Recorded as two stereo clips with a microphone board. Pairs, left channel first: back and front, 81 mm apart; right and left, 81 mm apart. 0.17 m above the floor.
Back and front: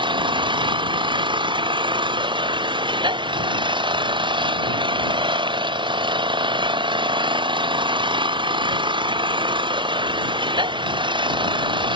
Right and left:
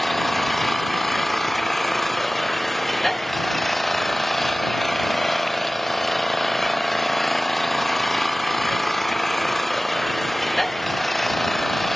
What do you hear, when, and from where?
0.0 s an engine running: 5° right